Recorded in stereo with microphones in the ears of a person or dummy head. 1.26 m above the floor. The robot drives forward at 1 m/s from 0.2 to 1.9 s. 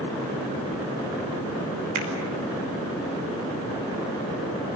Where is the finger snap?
65° right (ahead or behind), 5 m.